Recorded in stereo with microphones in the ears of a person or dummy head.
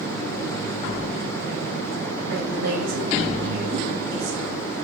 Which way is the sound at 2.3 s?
70° right (ahead or behind).